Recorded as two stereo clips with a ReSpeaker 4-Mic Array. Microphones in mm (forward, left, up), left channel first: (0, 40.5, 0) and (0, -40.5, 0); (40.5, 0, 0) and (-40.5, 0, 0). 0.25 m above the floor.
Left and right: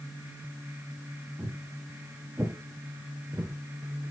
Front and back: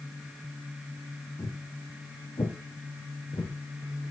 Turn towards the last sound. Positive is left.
turn(degrees=-40)